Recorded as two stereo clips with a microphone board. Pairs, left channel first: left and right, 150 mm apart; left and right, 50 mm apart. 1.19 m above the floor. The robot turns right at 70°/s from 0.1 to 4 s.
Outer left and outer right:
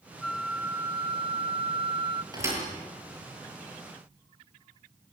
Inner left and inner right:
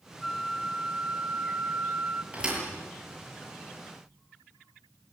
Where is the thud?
25° right (ahead or behind), 8 m; by 2.6 s 10° right (ahead or behind), 8 m.